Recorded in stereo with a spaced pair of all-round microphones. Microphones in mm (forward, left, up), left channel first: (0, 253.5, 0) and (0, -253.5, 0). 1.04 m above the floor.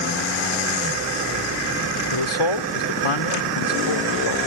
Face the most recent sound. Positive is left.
turn(degrees=75)  # may be behind; listen again after turning